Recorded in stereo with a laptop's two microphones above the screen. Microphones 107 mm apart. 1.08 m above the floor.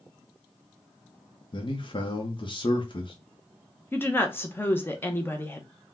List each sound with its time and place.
1.5 s a man speaking: 50° left (ahead or behind), 0.8 m
3.9 s a woman speaking: 20° left (ahead or behind), 0.7 m